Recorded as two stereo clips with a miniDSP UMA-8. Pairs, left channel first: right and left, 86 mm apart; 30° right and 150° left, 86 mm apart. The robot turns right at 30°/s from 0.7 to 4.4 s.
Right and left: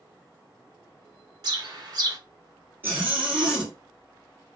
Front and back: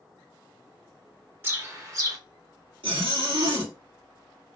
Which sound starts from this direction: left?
A bird, at 1.4 s.